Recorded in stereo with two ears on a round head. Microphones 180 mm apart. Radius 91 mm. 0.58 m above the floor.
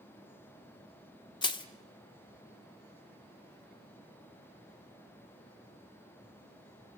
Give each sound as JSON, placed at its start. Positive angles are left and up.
{"t": 1.4, "sound": "crushing", "side_deg": 25, "distance_m": 1.3}